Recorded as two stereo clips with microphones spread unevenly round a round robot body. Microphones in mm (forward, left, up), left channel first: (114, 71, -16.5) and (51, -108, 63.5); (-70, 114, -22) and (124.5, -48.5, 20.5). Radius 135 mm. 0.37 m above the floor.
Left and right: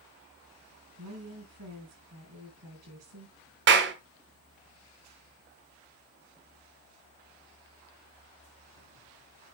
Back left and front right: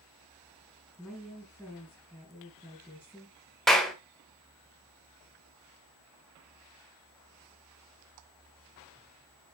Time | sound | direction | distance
1.0 | a woman speaking | 135° right | 5 m
3.7 | a clap | 145° right | 1.3 m